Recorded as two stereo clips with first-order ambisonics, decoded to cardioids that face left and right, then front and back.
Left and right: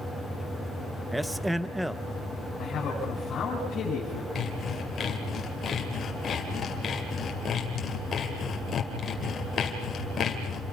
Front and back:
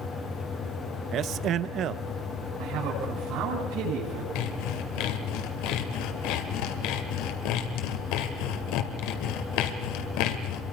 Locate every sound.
1.1 s a man speaking: 175° right, 0.6 m
2.6 s a man speaking: 145° left, 7 m
4.3 s sawing: 20° left, 2 m